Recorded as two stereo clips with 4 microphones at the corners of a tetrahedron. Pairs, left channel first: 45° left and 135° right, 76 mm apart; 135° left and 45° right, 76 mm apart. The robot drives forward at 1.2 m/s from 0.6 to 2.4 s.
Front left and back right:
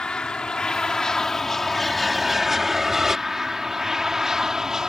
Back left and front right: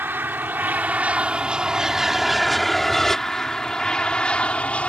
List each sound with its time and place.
0.0 s an aircraft: 25° right; by 4.9 s 155° left